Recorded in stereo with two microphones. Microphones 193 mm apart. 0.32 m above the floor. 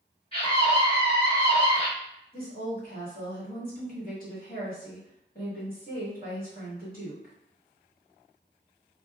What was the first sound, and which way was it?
A scream, 30° left (ahead or behind).